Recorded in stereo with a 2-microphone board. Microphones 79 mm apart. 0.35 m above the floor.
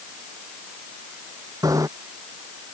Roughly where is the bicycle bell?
Right.